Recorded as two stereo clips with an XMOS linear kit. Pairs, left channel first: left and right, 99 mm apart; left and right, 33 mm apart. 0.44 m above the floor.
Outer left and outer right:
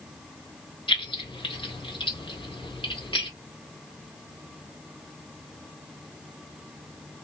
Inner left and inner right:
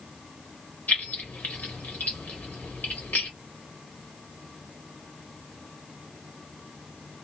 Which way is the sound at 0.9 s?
60° left (ahead or behind).